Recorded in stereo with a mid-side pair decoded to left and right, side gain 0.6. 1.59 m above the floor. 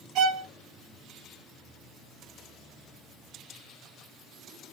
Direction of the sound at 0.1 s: 60° right.